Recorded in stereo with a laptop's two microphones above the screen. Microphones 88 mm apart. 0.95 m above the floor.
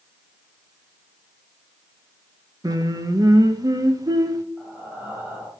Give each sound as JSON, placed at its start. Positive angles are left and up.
{"t": 2.6, "sound": "singing", "side_deg": -45, "distance_m": 0.9}
{"t": 4.6, "sound": "breathing", "side_deg": -20, "distance_m": 2.5}